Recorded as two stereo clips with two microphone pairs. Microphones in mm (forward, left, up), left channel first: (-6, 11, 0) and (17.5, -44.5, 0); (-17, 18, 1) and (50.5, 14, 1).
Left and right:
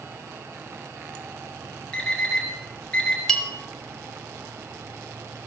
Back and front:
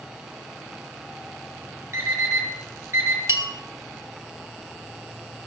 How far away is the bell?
About 1.4 m.